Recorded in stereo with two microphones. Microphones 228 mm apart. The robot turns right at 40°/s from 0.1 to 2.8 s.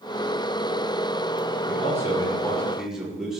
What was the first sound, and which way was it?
A man speaking, 140° left.